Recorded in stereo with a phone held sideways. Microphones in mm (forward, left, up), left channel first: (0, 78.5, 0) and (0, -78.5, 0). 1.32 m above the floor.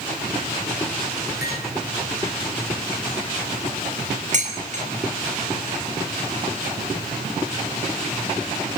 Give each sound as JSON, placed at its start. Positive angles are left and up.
{"t": 1.4, "sound": "cutlery clinking", "side_deg": 85, "distance_m": 8.5}
{"t": 4.3, "sound": "dishes clattering", "side_deg": -50, "distance_m": 5.5}